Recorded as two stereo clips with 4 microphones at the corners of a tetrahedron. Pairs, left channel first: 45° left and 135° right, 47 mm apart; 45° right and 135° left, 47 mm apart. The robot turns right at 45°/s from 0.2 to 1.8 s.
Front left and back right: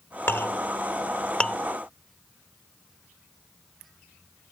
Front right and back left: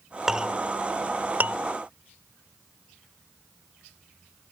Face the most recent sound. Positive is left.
turn(degrees=125)